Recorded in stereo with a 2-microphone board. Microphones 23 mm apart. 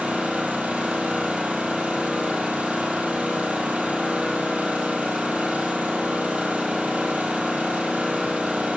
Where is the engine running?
80° right, 1.8 m.